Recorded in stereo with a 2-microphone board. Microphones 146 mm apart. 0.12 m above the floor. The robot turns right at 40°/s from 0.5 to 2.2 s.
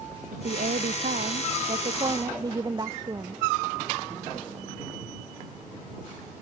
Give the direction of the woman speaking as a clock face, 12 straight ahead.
3 o'clock.